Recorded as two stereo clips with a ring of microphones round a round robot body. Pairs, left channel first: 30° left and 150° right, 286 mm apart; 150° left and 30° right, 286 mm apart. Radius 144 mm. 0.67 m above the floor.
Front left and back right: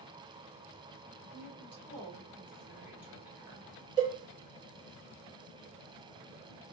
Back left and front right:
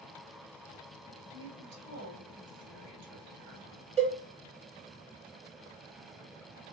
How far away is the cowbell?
About 1.1 m.